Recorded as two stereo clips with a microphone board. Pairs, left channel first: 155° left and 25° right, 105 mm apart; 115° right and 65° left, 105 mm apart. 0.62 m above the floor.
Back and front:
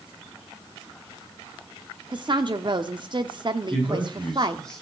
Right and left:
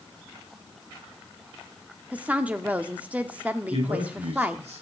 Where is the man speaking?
75° left, 7.5 m.